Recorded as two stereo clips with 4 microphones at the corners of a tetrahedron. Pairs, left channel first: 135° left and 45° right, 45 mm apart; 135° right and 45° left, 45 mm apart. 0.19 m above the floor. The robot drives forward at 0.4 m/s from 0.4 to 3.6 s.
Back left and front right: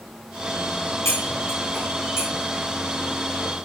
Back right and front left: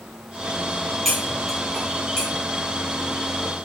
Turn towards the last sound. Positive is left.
turn(degrees=150)